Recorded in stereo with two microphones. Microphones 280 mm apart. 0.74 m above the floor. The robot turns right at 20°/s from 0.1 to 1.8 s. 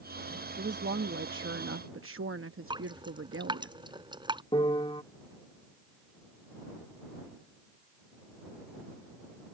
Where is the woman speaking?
40° right (ahead or behind); by 3.7 s 50° right (ahead or behind).